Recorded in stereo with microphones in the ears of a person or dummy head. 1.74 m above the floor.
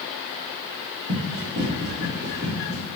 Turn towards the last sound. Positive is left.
turn(degrees=-30)  # may be behind; listen again after turning